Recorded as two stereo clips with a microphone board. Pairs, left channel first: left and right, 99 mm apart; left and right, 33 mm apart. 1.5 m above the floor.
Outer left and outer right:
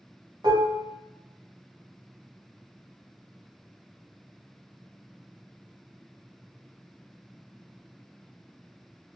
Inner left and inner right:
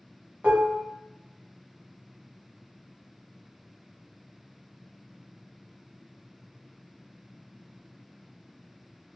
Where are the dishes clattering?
50° right (ahead or behind), 0.9 m.